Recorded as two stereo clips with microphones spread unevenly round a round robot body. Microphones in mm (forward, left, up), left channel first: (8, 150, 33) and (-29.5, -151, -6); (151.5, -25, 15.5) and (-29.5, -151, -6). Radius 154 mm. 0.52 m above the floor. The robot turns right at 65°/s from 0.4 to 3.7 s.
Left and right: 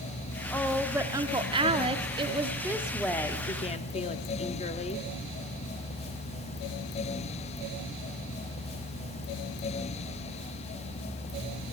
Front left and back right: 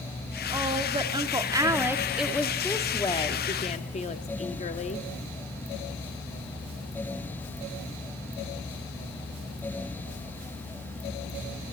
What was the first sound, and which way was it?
A woman speaking, 175° left.